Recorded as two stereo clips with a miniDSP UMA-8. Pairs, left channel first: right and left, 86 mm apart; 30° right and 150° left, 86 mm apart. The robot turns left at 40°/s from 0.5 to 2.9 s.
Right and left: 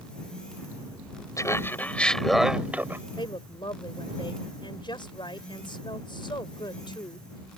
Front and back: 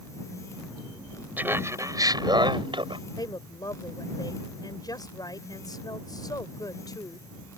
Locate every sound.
1.4 s laughter: 140° right; by 3.0 s 155° left
3.2 s a woman speaking: 70° right